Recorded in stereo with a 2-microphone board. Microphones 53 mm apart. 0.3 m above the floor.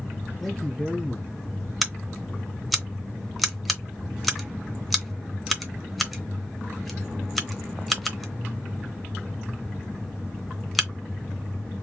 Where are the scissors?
Centre (ahead or behind), 0.8 m.